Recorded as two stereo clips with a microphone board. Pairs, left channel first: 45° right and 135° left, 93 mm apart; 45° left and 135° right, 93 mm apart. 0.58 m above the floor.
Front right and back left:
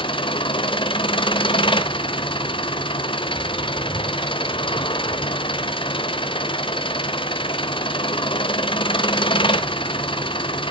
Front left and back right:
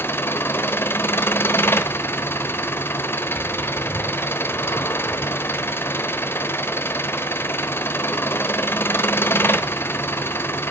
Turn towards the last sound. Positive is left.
turn(degrees=-20)